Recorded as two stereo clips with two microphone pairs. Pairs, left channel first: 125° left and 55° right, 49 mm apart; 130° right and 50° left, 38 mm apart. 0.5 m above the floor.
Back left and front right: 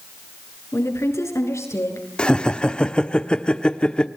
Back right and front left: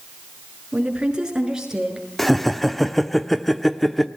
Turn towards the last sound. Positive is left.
turn(degrees=160)